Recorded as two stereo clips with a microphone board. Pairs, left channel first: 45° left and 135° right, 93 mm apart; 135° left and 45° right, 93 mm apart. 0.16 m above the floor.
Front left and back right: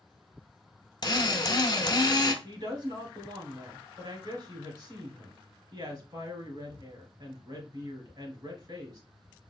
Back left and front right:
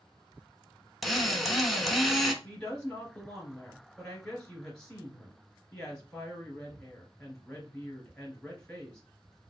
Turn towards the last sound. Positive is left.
turn(degrees=-145)